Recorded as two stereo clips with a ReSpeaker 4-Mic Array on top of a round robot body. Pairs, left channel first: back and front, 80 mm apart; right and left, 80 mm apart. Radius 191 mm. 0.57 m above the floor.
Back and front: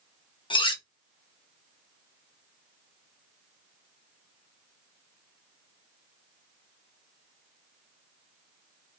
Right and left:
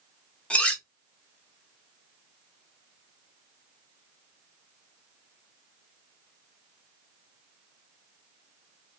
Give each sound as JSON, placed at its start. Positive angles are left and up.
{"t": 0.5, "sound": "cutlery clinking", "azimuth_deg": -165, "distance_m": 0.7}